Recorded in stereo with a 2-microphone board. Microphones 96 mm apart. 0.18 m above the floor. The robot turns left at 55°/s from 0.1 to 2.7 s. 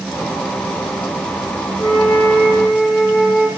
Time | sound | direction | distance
1.8 | a flute | 80° left | 3.5 m